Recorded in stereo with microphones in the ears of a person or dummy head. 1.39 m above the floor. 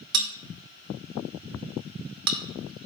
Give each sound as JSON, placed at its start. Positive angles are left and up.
{"t": 0.1, "sound": "a bell", "side_deg": -60, "distance_m": 1.1}